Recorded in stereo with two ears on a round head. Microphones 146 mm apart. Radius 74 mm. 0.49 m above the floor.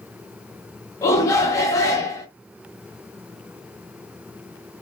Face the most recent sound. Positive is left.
turn(degrees=20)  # may be behind; listen again after turning